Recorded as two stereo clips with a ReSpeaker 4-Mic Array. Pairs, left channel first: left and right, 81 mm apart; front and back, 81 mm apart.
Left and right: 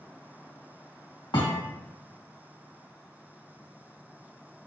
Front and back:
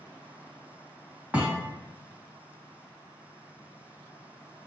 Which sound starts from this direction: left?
A thud, at 1.3 s.